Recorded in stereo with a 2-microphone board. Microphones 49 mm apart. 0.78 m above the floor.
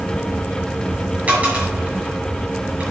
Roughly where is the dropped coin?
Right.